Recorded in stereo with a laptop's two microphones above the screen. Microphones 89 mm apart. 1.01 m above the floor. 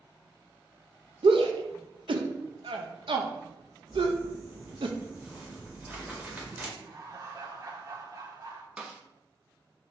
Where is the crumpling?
20° right (ahead or behind), 1.7 m.